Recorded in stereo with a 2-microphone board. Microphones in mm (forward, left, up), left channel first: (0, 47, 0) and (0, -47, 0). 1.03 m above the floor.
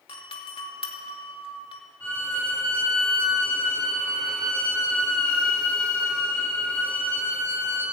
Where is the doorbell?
70° left (ahead or behind), 2.5 m.